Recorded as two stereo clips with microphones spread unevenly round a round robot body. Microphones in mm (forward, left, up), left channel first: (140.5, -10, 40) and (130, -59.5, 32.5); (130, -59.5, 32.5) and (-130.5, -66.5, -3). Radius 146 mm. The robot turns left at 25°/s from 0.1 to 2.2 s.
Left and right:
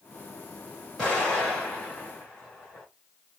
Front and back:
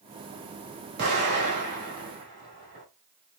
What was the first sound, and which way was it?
An explosion, 170° left.